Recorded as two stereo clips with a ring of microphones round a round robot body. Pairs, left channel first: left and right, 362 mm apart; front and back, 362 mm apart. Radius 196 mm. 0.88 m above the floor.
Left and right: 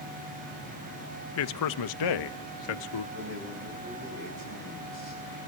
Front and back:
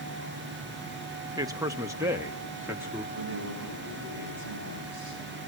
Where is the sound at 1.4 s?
105° left, 0.7 m; by 3.0 s 95° left, 1.9 m.